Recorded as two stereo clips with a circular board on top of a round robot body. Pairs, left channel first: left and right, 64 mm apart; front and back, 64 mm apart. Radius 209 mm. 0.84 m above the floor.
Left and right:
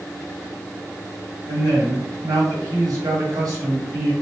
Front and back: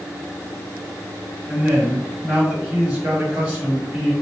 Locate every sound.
1.5 s a man speaking: 110° right, 1.9 m